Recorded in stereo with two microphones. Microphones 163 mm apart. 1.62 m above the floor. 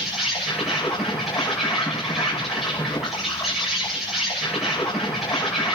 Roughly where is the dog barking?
No dog barking in this recording.